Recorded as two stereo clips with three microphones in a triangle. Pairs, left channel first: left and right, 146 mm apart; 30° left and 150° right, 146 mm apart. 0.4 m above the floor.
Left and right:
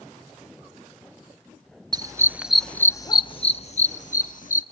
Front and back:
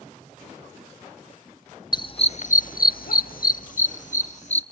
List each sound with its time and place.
1.9 s a dog barking: 30° right, 0.8 m; by 4.6 s 65° left, 1.5 m